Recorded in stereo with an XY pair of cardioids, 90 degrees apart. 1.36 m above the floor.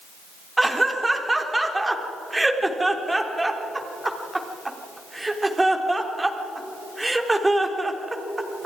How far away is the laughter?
About 4 m.